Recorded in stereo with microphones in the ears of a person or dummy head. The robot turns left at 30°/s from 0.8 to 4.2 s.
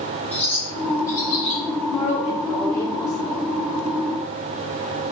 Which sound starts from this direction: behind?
A woman speaking, at 1.9 s.